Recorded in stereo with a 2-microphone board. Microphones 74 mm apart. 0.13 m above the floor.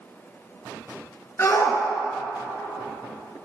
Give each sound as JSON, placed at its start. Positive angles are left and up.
{"t": 1.4, "sound": "a shout", "side_deg": 40, "distance_m": 2.0}